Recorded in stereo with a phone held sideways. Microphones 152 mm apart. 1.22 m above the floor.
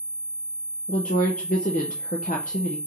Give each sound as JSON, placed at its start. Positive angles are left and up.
{"t": 0.9, "sound": "a woman speaking", "side_deg": 60, "distance_m": 0.6}